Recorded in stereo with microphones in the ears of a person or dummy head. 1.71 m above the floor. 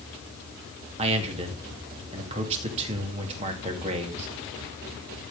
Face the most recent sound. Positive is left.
turn(degrees=-35)  # may be behind; listen again after turning